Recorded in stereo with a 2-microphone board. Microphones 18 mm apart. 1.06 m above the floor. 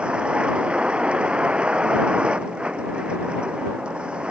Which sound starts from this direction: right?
A vehicle, at 0.0 s.